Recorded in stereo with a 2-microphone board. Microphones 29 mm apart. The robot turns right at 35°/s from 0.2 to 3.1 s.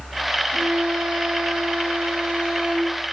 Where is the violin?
110° right, 5.5 m; by 3.0 s 20° right, 5.5 m.